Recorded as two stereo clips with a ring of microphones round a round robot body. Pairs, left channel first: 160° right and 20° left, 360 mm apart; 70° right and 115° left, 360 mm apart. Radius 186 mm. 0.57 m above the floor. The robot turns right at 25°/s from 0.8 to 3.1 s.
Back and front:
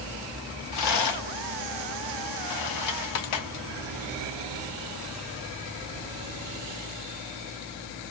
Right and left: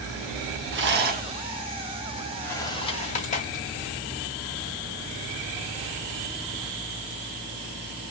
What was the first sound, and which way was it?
A rattle, 165° left.